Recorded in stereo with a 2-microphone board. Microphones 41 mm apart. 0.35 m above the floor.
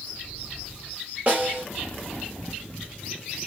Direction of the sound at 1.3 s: 35° right (ahead or behind).